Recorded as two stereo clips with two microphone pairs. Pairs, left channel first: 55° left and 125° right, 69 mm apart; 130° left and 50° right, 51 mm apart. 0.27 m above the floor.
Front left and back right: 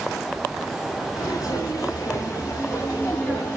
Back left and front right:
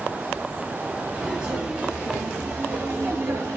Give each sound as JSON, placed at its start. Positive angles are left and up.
{"t": 1.1, "sound": "footsteps", "azimuth_deg": 20, "distance_m": 3.5}